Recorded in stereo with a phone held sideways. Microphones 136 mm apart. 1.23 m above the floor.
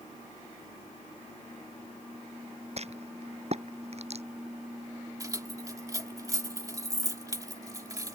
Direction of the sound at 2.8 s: 50° right (ahead or behind).